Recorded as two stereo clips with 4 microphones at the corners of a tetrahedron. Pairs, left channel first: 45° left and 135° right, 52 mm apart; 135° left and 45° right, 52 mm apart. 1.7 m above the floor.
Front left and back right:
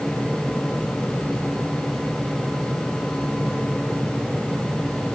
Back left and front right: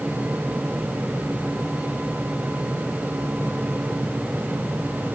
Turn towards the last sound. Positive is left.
No sound to turn to.